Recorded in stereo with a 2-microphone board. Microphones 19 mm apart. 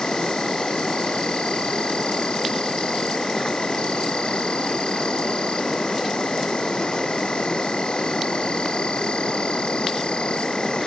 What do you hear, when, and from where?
0.0 s an insect: 60° left (ahead or behind)